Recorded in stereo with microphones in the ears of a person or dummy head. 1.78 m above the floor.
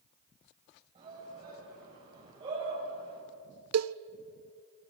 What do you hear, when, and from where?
0.9 s a shout: 30° right (ahead or behind), 9.5 m; by 3.2 s 25° right (ahead or behind), 9 m
3.7 s a cowbell: 85° right, 0.6 m